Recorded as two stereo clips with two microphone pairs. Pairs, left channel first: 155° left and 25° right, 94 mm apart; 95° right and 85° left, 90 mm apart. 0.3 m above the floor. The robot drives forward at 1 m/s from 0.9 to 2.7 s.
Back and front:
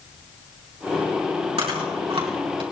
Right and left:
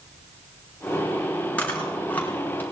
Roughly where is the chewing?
Ahead right.